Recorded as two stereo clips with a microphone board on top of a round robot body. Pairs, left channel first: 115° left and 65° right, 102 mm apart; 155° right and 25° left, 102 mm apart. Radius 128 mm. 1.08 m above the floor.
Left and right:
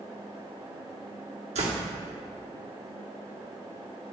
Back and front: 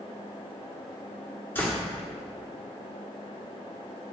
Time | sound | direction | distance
1.6 | a door slam | 85° right | 2.0 m